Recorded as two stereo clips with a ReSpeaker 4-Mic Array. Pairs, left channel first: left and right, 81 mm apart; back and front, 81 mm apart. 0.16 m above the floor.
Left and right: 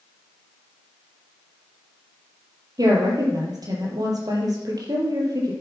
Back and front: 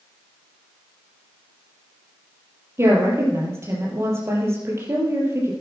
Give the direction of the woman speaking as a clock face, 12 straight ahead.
2 o'clock.